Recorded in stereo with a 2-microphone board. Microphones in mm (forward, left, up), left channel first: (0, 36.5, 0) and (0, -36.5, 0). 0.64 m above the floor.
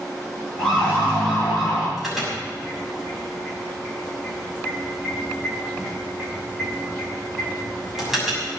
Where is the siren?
15° left (ahead or behind), 9 m; by 1.9 s 20° left (ahead or behind), 8.5 m.